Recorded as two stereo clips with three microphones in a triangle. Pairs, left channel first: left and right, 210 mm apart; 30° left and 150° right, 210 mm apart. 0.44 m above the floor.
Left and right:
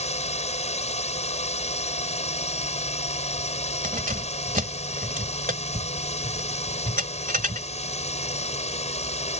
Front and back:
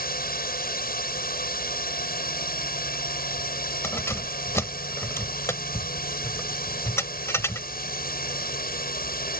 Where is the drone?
45° left.